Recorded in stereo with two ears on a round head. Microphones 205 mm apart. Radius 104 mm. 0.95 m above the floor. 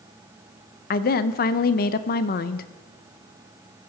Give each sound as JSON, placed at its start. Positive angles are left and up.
{"t": 0.9, "sound": "a woman speaking", "side_deg": 40, "distance_m": 0.5}